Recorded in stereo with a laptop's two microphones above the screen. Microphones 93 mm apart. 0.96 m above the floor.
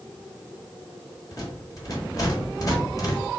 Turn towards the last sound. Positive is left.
turn(degrees=40)  # may be behind; listen again after turning